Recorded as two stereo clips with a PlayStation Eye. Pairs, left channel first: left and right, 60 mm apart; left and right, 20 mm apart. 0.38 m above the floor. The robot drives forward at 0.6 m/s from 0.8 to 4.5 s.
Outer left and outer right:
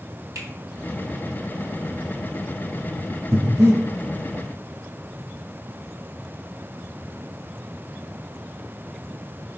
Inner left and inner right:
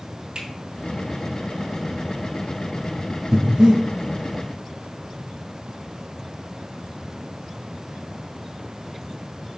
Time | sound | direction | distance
0.3 | a finger snap | 65° right (ahead or behind) | 3.5 m
3.3 | breathing | 40° right (ahead or behind) | 3.5 m